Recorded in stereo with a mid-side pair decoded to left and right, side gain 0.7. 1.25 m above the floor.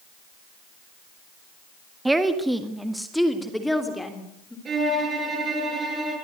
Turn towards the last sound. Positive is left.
turn(degrees=-30)